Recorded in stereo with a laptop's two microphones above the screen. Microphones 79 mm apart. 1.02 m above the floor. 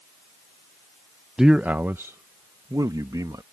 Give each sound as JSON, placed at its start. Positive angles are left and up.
{"t": 1.4, "sound": "a man speaking", "side_deg": -5}